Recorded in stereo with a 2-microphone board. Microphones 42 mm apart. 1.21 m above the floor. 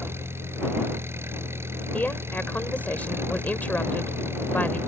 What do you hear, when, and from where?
0.0 s an engine running: 85° right
1.9 s a woman speaking: 45° left (ahead or behind)